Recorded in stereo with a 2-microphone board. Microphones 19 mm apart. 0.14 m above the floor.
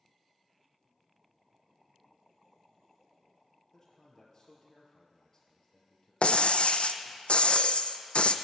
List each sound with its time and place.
3.7 s a man speaking: 25° left (ahead or behind), 2.5 m
6.2 s breaking glass: 65° left (ahead or behind), 0.5 m